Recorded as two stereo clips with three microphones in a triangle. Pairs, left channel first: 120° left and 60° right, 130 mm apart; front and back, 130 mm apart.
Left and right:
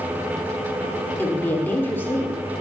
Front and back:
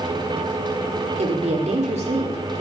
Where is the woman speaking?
170° right, 2.0 m.